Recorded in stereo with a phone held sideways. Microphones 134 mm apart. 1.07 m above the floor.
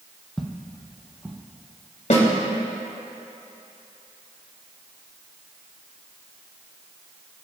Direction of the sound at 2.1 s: 65° left (ahead or behind).